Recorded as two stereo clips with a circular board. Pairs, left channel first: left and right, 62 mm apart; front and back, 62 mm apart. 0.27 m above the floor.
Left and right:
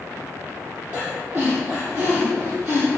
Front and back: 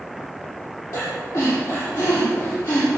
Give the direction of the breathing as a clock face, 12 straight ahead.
1 o'clock.